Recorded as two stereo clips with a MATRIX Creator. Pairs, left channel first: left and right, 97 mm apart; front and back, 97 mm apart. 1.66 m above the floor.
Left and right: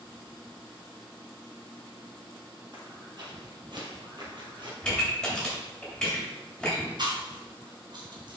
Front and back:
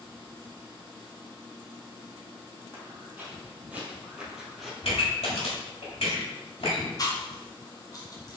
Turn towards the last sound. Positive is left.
turn(degrees=-50)